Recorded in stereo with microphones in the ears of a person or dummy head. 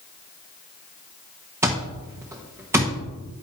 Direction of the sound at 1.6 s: 10° right (ahead or behind).